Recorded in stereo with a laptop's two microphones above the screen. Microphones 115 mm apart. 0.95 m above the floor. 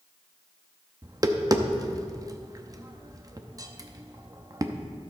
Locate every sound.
1.0 s tapping: 30° right (ahead or behind), 0.7 m